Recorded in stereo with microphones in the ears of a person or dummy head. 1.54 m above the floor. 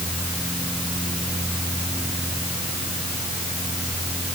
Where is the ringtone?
I don't hear a ringtone.